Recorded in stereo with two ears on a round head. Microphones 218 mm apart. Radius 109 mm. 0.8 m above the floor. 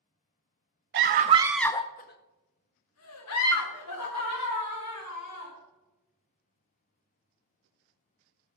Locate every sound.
0.9 s a scream: 45° right (ahead or behind), 0.7 m; by 5.5 s 80° left, 3 m